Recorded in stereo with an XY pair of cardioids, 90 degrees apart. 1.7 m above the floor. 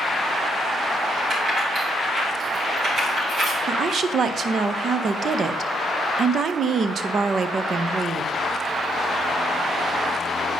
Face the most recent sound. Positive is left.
turn(degrees=-60)